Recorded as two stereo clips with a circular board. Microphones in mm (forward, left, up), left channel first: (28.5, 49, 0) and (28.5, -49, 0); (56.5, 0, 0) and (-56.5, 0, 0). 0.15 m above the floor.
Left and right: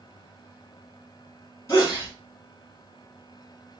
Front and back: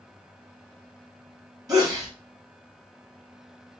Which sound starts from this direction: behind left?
A sneeze, at 1.7 s.